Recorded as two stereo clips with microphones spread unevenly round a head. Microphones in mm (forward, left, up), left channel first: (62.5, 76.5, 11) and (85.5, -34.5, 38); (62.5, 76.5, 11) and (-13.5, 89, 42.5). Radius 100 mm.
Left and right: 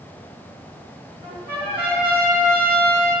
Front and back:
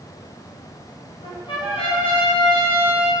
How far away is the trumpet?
About 2 m.